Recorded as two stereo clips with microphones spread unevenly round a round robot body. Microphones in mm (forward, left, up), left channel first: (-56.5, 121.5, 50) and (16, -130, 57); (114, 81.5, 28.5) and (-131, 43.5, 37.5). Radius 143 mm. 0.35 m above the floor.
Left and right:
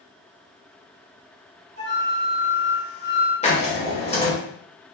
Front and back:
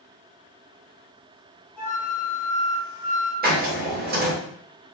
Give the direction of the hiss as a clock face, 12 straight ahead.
7 o'clock.